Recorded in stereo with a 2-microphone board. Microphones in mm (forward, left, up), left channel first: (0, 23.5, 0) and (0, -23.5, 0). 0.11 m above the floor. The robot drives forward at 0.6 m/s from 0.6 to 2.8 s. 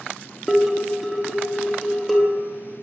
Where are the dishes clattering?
Centre (ahead or behind), 0.9 m.